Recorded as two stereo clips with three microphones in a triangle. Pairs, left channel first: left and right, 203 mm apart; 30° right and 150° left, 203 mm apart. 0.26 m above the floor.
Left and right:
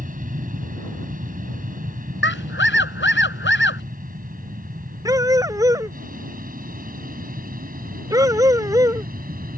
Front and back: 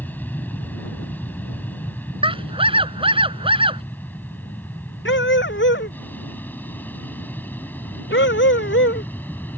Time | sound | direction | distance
0.0 | an aircraft | 110° right | ?
2.2 | a scream | 90° left | ?
5.0 | a dog barking | 15° right | ?